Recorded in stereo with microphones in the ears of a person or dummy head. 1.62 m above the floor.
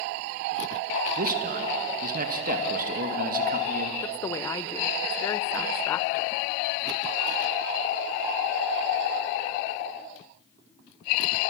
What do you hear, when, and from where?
1.2 s a man speaking: 50° right (ahead or behind), 2 m
4.0 s a woman speaking: 10° left (ahead or behind), 0.7 m